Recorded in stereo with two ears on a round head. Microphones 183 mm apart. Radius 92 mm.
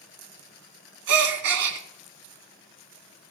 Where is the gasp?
80° right, 1.8 m.